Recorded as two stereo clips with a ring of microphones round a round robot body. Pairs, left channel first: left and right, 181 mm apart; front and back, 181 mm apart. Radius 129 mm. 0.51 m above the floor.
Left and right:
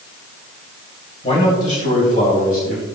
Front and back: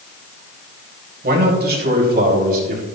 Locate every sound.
1.2 s a man speaking: 155° left, 2.5 m; by 2.9 s 145° left, 3.5 m